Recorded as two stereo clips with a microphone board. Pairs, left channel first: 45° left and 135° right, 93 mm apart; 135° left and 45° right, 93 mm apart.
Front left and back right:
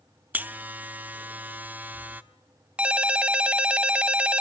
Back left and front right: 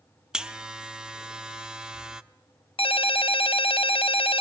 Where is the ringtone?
145° left, 0.6 m.